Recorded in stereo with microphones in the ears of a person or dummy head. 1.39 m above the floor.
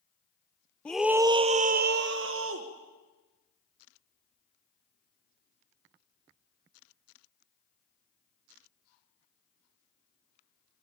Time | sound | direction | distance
0.8 | a scream | 5° left (ahead or behind) | 0.9 m